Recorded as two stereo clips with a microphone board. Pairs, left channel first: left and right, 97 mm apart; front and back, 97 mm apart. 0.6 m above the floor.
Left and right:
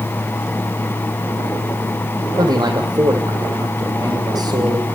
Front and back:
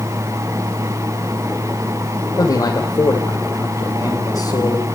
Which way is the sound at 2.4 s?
50° right.